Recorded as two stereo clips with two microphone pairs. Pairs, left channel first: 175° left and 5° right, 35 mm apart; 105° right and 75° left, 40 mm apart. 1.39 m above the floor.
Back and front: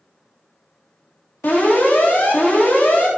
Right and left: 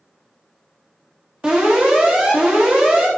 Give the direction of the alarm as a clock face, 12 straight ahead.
7 o'clock.